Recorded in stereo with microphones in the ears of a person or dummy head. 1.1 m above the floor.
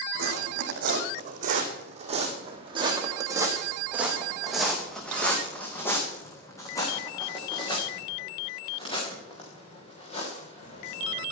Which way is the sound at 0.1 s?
55° right (ahead or behind).